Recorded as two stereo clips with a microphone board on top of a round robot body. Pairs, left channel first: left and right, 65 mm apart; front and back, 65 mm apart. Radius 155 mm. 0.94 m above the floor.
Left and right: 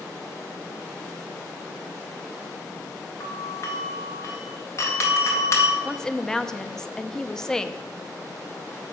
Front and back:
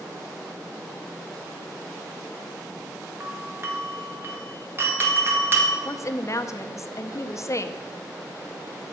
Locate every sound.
3.2 s a doorbell: 130° left, 1.8 m
5.8 s a woman speaking: 10° left, 0.7 m